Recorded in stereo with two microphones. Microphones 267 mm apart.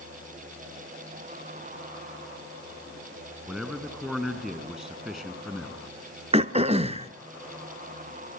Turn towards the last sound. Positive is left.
turn(degrees=-20)  # may be behind; listen again after turning